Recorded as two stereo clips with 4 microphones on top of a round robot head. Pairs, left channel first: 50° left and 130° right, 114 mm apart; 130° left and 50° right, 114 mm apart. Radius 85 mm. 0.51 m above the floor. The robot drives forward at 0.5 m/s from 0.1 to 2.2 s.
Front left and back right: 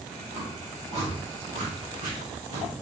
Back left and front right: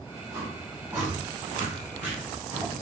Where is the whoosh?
120° right, 4.5 m; by 2.7 s 130° right, 5 m.